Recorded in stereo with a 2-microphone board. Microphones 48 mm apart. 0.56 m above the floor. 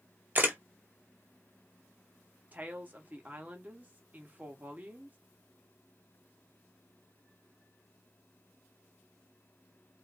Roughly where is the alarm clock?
I don't hear an alarm clock.